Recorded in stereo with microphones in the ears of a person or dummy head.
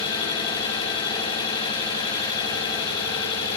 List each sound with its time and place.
0.0 s an engine running: 25° left (ahead or behind), 6.5 m